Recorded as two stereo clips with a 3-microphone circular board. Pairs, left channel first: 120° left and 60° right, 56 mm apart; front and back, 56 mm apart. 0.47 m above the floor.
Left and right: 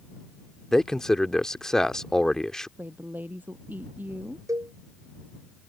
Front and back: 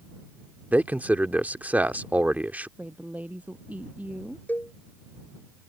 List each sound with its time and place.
0.7 s a man speaking: 170° right
2.8 s a woman speaking: 115° right
4.5 s a cowbell: 55° right